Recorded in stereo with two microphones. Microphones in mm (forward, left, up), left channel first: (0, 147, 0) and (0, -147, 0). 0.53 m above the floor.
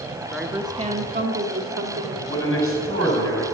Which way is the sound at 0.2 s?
10° left (ahead or behind).